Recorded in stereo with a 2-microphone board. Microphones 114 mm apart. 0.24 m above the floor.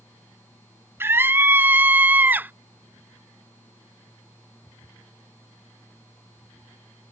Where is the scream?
20° right (ahead or behind); by 2.5 s 15° right (ahead or behind).